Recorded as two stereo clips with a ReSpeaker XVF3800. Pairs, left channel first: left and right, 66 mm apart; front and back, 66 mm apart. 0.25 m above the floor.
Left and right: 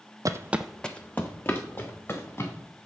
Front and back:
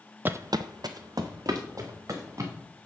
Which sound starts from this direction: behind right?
Footsteps, at 0.2 s.